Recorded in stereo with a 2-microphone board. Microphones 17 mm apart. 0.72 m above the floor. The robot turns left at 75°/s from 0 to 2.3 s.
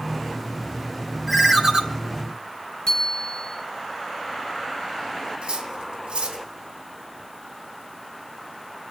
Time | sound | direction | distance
1.3 | a ringtone | straight ahead | 1.3 m
2.9 | a bicycle bell | 45° left (ahead or behind) | 8.5 m
5.4 | cutlery clinking | 85° right | 3 m